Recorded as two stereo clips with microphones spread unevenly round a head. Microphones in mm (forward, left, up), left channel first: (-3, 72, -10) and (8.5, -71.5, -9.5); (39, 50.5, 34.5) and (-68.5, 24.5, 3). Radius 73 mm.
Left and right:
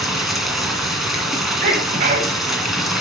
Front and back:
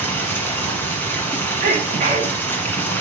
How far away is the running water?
About 1.5 m.